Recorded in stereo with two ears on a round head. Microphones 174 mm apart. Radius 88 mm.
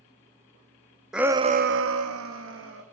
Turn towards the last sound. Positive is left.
turn(degrees=-60)  # may be behind; listen again after turning